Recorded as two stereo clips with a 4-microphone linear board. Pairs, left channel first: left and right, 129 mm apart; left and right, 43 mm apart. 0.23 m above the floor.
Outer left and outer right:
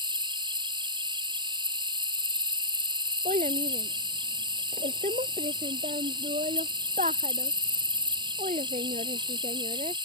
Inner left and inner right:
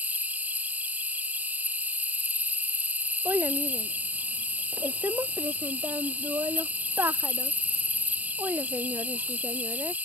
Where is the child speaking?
75° right (ahead or behind).